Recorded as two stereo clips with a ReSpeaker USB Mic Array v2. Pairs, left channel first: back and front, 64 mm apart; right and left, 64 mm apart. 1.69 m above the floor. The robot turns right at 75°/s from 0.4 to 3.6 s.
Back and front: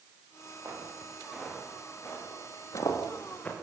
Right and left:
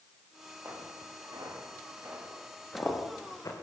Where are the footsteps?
40° left, 9 m; by 3.5 s 110° right, 6.5 m.